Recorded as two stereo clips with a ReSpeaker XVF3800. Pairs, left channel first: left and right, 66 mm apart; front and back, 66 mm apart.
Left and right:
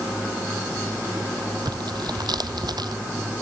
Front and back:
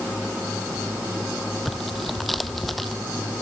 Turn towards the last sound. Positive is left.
turn(degrees=-90)